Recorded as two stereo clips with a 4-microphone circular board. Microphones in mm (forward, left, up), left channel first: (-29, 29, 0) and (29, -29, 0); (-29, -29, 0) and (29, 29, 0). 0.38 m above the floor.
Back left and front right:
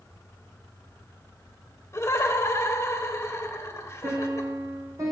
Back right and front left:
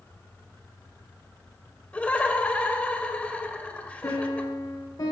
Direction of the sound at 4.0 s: 90° right.